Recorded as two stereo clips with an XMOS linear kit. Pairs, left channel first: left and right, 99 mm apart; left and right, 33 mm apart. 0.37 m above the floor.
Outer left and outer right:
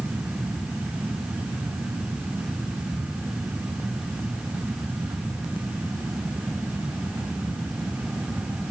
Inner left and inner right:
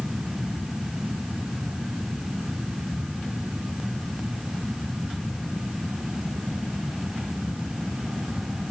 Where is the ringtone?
I don't hear a ringtone.